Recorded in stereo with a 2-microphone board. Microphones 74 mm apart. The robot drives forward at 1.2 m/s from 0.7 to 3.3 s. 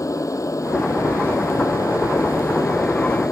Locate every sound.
0.0 s an aircraft: 45° left (ahead or behind); by 3.3 s 50° left (ahead or behind)